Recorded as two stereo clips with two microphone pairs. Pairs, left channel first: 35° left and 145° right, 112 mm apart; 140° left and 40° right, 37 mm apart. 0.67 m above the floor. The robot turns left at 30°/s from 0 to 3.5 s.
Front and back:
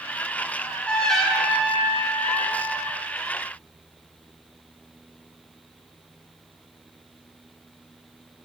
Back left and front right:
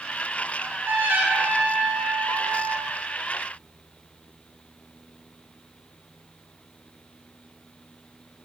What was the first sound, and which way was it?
A trumpet, 35° right.